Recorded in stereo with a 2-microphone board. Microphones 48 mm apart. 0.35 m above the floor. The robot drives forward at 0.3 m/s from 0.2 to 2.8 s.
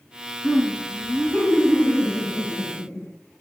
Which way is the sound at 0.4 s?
60° left (ahead or behind).